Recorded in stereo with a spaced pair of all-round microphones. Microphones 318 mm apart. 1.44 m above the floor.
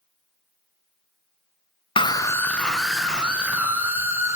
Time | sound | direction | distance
2.0 | a scream | 20° left (ahead or behind) | 0.6 m